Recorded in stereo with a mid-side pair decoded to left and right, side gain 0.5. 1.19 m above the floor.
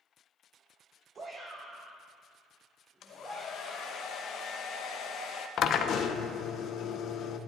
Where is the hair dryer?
60° left, 0.9 m.